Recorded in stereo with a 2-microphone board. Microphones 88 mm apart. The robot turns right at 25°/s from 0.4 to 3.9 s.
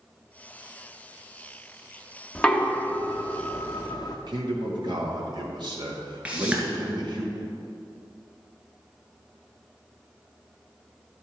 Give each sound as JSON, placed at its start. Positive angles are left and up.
{"t": 2.4, "sound": "knocking", "side_deg": 10, "distance_m": 1.0}
{"t": 4.3, "sound": "a man speaking", "side_deg": -60, "distance_m": 1.6}
{"t": 6.2, "sound": "a whoosh", "side_deg": -15, "distance_m": 2.0}